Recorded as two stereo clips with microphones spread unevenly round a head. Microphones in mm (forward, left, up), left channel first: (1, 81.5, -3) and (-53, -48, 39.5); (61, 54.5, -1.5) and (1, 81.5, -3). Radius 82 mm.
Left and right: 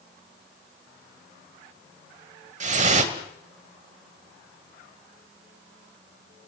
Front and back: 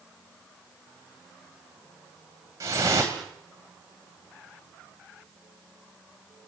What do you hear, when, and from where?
2.6 s dripping: 140° right, 2.5 m